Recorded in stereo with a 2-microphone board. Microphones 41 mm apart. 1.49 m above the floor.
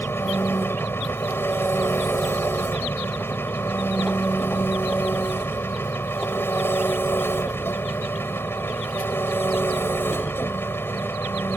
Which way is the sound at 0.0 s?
80° left.